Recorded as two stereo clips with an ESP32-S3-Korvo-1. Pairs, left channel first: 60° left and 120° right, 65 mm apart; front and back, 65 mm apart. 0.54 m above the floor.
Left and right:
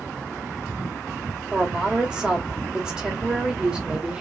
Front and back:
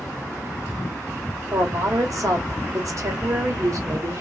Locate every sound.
1.5 s a woman speaking: 165° left, 1.7 m